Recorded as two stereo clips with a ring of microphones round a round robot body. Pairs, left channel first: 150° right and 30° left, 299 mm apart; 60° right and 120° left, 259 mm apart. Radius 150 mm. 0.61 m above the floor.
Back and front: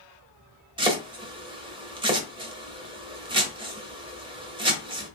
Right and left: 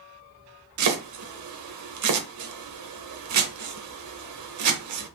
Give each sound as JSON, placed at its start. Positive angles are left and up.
{"t": 0.8, "sound": "chopping", "azimuth_deg": 105, "distance_m": 1.0}